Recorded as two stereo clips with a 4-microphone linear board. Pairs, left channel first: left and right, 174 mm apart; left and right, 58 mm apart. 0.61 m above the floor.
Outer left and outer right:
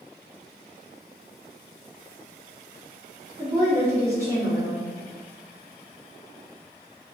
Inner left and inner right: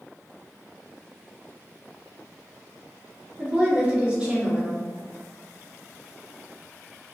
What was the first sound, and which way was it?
A woman speaking, 15° right (ahead or behind).